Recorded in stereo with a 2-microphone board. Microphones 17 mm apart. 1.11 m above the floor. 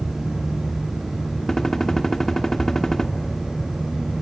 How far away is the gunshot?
About 1.6 m.